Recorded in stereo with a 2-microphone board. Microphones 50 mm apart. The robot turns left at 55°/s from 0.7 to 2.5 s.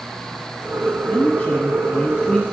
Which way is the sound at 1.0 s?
20° left (ahead or behind).